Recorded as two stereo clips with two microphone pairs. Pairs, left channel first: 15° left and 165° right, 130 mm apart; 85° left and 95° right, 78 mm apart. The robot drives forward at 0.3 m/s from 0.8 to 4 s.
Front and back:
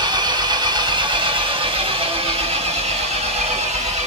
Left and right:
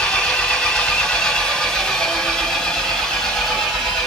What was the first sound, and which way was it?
An engine running, 160° left.